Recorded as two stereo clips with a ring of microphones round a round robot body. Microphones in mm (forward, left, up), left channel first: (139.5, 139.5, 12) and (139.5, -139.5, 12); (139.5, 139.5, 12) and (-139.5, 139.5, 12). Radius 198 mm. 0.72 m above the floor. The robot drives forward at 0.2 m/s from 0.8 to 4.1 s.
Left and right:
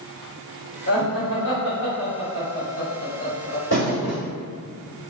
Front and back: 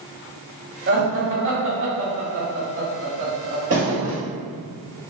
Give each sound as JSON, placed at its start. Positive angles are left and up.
{"t": 0.9, "sound": "laughter", "azimuth_deg": 135, "distance_m": 1.2}
{"t": 3.7, "sound": "a thud", "azimuth_deg": 150, "distance_m": 1.6}